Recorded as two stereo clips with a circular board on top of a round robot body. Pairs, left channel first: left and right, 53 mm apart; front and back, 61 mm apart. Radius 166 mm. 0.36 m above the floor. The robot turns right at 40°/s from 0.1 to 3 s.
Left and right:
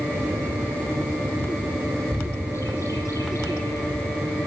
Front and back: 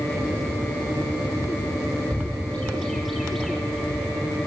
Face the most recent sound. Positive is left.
turn(degrees=90)